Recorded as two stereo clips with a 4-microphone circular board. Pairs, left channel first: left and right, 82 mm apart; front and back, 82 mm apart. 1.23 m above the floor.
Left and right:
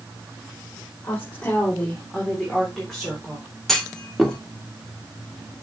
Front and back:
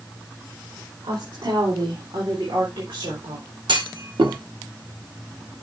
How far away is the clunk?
About 1.6 m.